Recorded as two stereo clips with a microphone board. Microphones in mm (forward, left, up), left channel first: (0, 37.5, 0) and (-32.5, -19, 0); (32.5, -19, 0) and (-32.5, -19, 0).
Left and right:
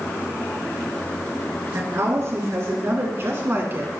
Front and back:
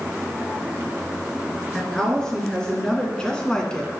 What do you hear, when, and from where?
1.7 s a woman speaking: 80° right, 3.5 m; by 3.9 s 75° right, 2 m